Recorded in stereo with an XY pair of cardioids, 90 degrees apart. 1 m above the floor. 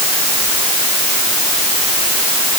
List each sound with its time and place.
Only background noise.